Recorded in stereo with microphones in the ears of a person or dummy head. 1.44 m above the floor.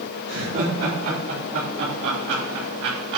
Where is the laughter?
85° right, 4.5 m; by 3.2 s 60° right (ahead or behind), 2.5 m.